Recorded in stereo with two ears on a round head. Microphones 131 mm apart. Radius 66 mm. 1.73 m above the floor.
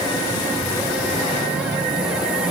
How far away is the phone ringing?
I don't hear a phone ringing.